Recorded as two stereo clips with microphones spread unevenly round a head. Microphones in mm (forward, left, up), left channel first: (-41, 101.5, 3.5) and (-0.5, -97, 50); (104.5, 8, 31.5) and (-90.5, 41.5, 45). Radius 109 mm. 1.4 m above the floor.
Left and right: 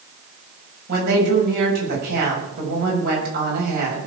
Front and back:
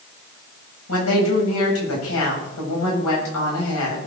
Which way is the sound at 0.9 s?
30° right.